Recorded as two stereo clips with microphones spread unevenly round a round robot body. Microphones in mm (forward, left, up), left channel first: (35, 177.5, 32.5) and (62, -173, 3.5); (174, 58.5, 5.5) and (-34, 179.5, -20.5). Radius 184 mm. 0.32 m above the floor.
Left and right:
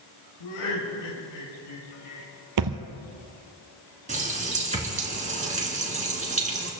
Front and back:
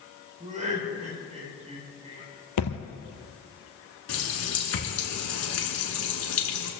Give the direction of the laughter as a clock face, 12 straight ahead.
9 o'clock.